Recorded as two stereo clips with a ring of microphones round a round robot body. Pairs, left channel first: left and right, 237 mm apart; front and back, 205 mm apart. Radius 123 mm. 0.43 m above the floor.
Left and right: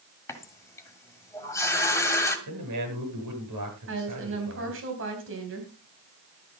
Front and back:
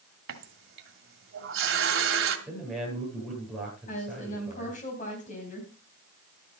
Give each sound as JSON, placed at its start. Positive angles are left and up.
{"t": 0.3, "sound": "a running tap", "azimuth_deg": 170, "distance_m": 2.0}
{"t": 2.5, "sound": "a man speaking", "azimuth_deg": -90, "distance_m": 9.0}
{"t": 3.9, "sound": "a woman speaking", "azimuth_deg": -55, "distance_m": 3.5}